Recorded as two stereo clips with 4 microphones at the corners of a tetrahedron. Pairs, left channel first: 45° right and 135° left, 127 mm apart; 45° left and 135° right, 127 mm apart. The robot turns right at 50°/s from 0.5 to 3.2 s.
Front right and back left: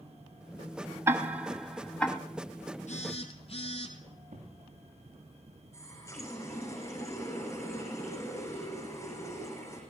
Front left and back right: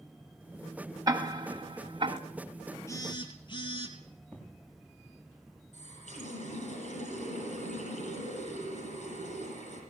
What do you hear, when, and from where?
1.1 s ticking: 170° right, 1.4 m; by 2.2 s 115° right, 1.4 m
2.9 s a phone buzzing: 20° right, 2.5 m; by 4.0 s 5° right, 2.5 m
4.3 s an explosion: 125° left, 6.5 m
5.7 s a running tap: 25° left, 7.5 m